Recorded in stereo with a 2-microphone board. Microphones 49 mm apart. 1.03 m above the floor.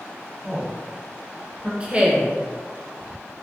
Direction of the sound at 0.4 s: 35° right (ahead or behind).